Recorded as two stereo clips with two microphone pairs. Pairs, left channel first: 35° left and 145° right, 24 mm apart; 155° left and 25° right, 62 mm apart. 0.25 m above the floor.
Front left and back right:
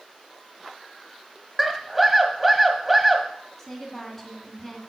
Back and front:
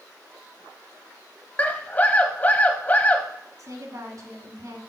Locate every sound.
1.6 s a scream: 125° left, 1.1 m
3.6 s a woman speaking: 40° right, 2 m